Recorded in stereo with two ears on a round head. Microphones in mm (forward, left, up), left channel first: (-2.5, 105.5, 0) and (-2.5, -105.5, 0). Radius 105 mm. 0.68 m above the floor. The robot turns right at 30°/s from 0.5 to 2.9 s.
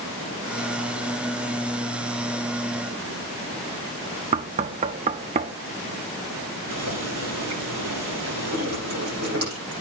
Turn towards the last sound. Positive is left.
turn(degrees=-45)  # may be behind; listen again after turning